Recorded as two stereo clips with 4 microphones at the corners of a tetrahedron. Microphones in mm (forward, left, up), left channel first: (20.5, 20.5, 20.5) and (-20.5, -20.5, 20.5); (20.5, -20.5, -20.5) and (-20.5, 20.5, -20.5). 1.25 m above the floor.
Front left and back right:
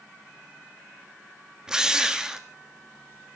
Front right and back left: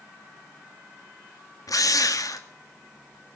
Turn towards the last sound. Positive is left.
turn(degrees=-55)